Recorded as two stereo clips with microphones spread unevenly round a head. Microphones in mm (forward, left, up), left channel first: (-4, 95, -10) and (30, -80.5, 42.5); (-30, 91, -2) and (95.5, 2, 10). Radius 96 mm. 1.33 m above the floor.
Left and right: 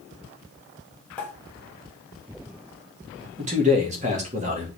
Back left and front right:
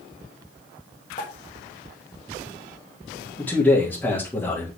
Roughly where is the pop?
Behind.